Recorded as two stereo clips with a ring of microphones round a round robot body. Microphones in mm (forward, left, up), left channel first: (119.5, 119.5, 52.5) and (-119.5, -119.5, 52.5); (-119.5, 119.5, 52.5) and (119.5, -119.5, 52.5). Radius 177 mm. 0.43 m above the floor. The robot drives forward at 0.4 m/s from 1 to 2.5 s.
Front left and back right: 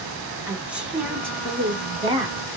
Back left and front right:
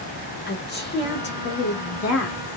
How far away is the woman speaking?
About 1.1 m.